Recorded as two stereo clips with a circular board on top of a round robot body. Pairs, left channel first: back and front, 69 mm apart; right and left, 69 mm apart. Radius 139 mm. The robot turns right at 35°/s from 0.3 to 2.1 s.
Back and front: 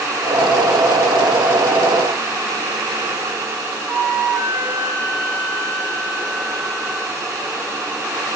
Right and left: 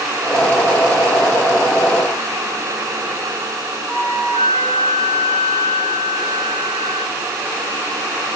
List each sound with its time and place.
3.9 s a flute: 70° left, 3.5 m